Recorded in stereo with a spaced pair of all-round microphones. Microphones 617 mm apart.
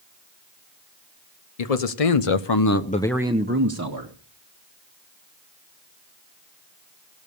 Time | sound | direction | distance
1.6 | a man speaking | 80° left | 1.1 m